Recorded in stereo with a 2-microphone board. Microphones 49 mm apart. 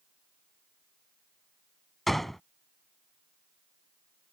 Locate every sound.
2.1 s a gunshot: 5° left (ahead or behind)